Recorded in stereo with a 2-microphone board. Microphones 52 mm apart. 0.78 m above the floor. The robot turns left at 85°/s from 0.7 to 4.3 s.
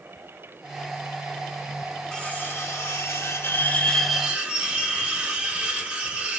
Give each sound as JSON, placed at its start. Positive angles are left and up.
{"t": 2.1, "sound": "cutlery clinking", "azimuth_deg": 165, "distance_m": 1.3}